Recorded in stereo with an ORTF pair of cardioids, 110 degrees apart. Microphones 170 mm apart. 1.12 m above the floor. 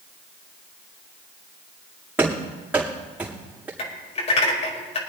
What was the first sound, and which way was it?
Running footsteps, 10° right.